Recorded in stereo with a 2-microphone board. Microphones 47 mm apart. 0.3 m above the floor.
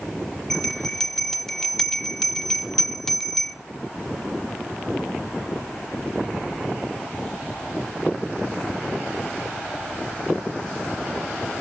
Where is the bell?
10° left (ahead or behind), 0.8 m.